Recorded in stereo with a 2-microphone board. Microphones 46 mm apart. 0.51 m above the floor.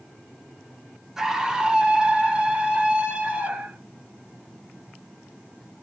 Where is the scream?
10° right (ahead or behind), 1.0 m; by 3.8 s 30° right (ahead or behind), 2.5 m.